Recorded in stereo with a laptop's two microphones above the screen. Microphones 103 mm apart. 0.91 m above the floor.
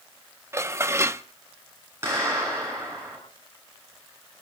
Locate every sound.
0.5 s dishes clattering: 25° right (ahead or behind), 0.8 m
2.0 s a clap: 25° right (ahead or behind), 9.5 m